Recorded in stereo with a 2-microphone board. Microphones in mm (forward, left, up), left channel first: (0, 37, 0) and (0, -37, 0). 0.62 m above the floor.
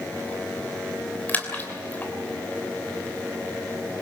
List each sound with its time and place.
1.3 s a splash: 25° left (ahead or behind), 3 m